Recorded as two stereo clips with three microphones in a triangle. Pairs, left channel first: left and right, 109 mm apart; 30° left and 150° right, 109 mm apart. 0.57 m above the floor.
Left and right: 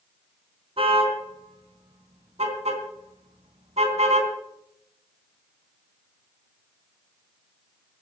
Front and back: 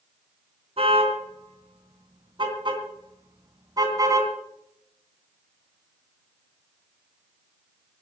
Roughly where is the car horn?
Behind right.